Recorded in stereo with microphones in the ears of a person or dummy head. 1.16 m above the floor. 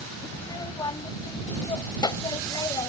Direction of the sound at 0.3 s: 20° left (ahead or behind).